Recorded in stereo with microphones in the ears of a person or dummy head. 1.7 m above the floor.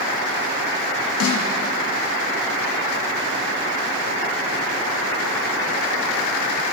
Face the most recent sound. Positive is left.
turn(degrees=90)